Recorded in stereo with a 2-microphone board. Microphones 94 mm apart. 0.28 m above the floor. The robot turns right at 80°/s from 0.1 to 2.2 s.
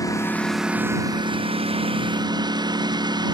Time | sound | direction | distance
0.0 | a lawn mower | 145° left | ?